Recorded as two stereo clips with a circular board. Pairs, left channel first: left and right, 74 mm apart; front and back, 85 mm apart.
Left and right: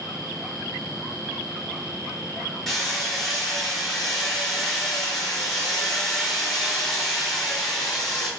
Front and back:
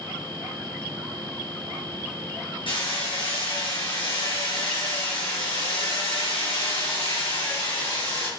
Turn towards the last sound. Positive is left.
turn(degrees=5)